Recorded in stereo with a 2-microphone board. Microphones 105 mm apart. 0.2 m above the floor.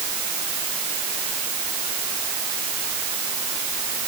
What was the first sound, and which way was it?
Only background noise.